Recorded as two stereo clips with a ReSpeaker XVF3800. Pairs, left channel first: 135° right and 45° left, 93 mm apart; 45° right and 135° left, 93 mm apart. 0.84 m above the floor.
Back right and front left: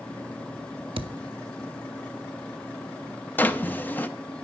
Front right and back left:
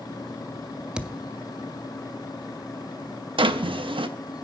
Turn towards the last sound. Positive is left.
turn(degrees=155)